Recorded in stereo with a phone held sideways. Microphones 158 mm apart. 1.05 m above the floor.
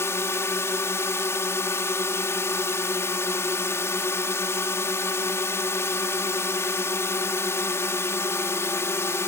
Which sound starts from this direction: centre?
A drone, at 0.0 s.